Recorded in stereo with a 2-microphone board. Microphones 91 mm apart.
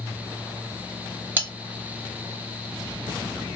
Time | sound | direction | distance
1.4 | cutlery clinking | 20° right (ahead or behind) | 1.0 m